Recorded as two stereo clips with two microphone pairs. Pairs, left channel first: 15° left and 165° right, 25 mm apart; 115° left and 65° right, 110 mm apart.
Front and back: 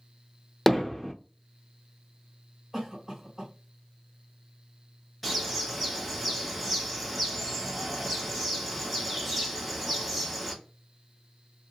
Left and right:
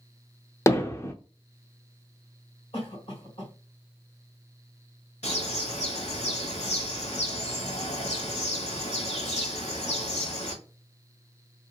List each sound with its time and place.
0.7 s hammering: 90° left, 0.5 m
2.7 s a cough: 110° left, 2 m
5.2 s a bird: 100° left, 1.2 m